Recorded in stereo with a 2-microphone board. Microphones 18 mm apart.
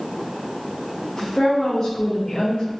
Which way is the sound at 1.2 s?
80° left.